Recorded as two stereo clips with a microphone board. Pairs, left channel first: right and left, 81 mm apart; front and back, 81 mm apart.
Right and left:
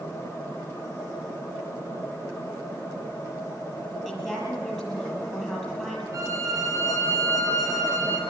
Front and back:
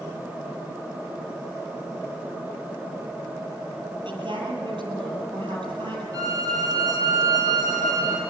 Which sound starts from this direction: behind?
A woman speaking, at 4.0 s.